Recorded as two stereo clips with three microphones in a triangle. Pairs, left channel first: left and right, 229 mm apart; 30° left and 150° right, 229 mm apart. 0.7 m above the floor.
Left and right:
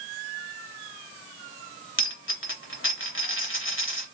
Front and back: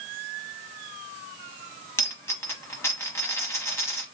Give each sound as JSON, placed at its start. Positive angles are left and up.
{"t": 2.0, "sound": "a dropped coin", "azimuth_deg": 105, "distance_m": 0.9}